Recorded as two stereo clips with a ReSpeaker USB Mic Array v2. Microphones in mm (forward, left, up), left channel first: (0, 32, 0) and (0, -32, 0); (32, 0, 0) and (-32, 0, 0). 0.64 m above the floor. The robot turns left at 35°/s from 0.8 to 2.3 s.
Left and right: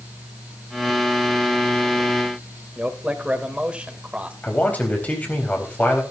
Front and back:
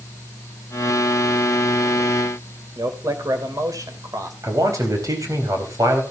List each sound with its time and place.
2.8 s a man speaking: 160° right, 2.5 m
4.4 s a man speaking: 155° left, 4 m